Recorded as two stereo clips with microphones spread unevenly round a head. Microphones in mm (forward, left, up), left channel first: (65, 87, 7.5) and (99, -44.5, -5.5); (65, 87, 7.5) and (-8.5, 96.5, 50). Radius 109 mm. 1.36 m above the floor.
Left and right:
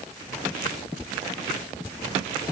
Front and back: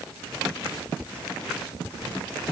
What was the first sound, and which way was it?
Only background noise.